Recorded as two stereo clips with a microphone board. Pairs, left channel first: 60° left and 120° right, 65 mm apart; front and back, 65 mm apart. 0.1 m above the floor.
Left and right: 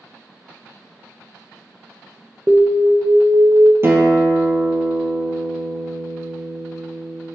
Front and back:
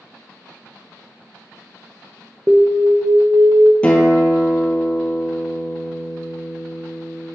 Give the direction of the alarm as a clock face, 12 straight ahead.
6 o'clock.